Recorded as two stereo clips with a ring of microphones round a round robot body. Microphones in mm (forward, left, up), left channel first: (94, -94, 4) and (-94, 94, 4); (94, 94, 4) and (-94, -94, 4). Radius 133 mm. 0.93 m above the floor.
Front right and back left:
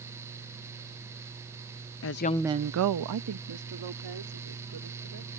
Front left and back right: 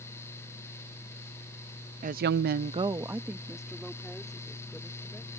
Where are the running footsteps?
No running footsteps in this recording.